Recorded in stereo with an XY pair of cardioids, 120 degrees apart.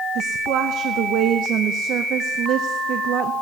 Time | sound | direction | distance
0.1 | a woman speaking | 65° right | 0.6 m